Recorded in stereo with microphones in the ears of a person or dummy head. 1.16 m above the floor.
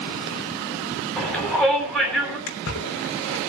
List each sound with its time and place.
1.2 s a shout: centre (ahead or behind), 8 m
2.5 s a splash: 75° left (ahead or behind), 3.5 m